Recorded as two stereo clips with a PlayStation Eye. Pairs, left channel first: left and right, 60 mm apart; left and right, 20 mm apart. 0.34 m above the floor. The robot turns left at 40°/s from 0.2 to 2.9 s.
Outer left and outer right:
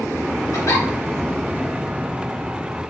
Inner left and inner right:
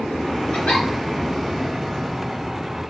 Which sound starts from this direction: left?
A giggle, at 0.5 s.